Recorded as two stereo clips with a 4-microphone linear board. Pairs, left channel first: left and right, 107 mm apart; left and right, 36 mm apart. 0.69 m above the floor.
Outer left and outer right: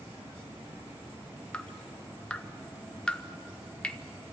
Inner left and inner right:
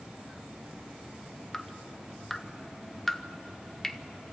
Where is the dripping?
10° left (ahead or behind), 0.7 m.